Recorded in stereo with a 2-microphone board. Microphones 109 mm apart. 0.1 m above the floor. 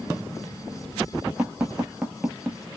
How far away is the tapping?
About 0.6 m.